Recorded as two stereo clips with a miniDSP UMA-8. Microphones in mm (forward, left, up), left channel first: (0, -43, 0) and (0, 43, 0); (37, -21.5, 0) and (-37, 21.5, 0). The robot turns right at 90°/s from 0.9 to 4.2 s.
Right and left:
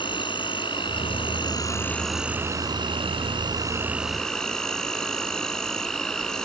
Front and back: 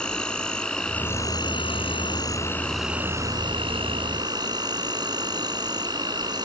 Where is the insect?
110° right; by 6.5 s 175° right.